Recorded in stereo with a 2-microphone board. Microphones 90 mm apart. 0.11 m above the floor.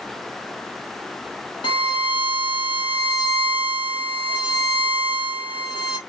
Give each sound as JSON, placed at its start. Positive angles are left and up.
{"t": 1.6, "sound": "a violin", "side_deg": 65, "distance_m": 1.7}